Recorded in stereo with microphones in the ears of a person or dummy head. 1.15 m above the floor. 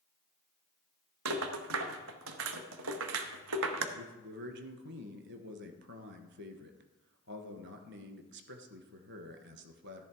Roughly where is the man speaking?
Right.